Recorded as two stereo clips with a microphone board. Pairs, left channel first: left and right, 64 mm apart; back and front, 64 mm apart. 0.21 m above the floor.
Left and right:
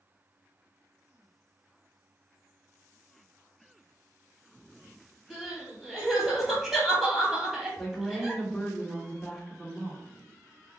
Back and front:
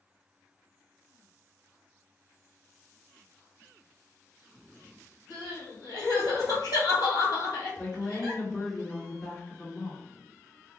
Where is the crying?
175° right, 1.8 m.